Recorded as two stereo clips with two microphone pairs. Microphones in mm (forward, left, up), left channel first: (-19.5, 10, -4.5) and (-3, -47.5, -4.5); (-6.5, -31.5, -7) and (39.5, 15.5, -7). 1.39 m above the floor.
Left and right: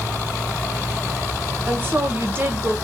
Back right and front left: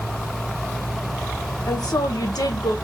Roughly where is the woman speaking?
Behind right.